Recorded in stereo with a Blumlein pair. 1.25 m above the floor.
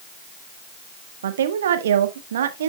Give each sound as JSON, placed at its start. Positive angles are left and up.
{"t": 1.2, "sound": "a woman speaking", "azimuth_deg": -60, "distance_m": 1.3}